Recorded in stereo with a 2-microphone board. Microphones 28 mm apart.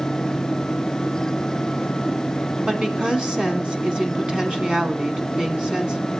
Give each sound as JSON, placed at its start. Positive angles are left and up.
{"t": 2.7, "sound": "a woman speaking", "side_deg": -30, "distance_m": 1.5}